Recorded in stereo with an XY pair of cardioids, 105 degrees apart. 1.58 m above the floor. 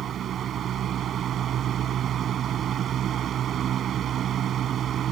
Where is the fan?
65° right.